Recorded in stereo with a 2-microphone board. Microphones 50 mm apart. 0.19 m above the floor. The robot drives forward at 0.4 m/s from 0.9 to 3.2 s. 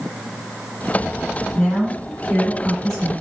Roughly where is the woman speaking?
Centre.